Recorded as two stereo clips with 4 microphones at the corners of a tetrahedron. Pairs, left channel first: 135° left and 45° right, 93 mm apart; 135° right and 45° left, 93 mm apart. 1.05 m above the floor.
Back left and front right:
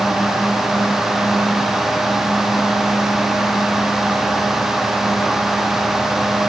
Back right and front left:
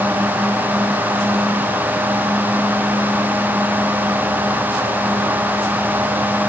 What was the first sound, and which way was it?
Only background noise.